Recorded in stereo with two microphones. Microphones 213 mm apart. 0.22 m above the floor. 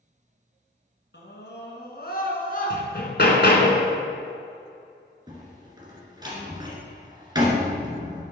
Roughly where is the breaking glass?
No breaking glass in this recording.